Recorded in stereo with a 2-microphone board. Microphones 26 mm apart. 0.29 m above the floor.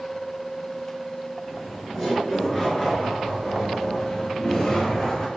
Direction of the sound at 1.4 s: 5° right (ahead or behind).